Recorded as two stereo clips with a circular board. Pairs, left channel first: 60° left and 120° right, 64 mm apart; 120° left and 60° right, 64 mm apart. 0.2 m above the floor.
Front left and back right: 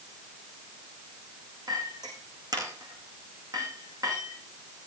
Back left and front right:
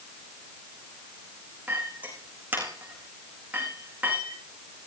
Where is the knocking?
I don't hear knocking.